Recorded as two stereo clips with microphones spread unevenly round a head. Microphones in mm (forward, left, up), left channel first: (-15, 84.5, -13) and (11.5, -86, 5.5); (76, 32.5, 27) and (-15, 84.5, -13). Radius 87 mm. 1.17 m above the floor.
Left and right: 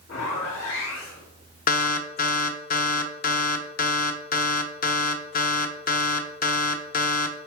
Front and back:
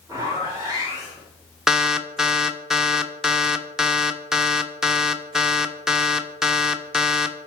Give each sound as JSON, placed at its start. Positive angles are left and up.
{"t": 0.1, "sound": "a zipper", "azimuth_deg": 100, "distance_m": 3.5}
{"t": 1.7, "sound": "an alarm", "azimuth_deg": 55, "distance_m": 0.6}